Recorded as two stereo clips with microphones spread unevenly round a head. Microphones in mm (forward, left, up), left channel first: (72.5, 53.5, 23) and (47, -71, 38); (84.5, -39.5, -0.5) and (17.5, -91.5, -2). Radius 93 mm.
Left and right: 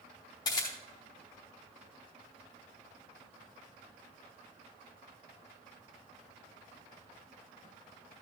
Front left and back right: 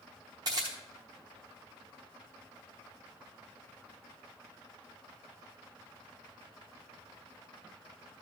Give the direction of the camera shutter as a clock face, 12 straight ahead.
7 o'clock.